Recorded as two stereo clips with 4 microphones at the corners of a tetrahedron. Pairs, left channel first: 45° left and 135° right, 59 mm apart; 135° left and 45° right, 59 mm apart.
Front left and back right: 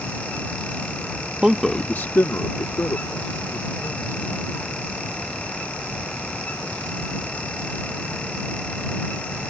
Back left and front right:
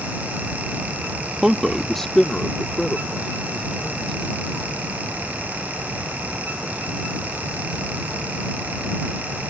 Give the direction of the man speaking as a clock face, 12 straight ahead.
3 o'clock.